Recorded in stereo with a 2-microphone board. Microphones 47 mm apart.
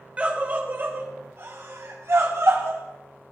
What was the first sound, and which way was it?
A scream, 25° right (ahead or behind).